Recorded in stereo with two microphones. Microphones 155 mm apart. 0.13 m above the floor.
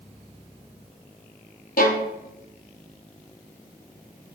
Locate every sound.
1.8 s a violin: 80° left, 0.6 m